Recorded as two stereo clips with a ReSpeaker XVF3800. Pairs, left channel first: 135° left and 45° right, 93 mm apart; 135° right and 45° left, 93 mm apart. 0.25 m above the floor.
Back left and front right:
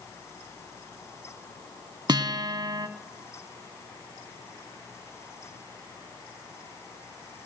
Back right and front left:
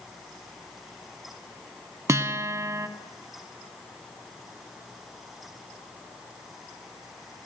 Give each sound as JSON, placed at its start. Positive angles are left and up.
{"t": 2.1, "sound": "a guitar", "azimuth_deg": -10, "distance_m": 0.6}